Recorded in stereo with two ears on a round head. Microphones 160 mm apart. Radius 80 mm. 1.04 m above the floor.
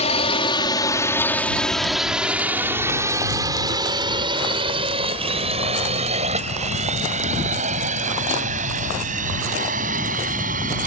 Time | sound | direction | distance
0.0 | a drone | 40° left (ahead or behind) | ?